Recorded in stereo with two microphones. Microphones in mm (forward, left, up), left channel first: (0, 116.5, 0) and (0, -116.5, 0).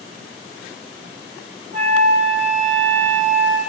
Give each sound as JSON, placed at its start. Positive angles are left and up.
{"t": 1.7, "sound": "a flute", "side_deg": -35, "distance_m": 0.6}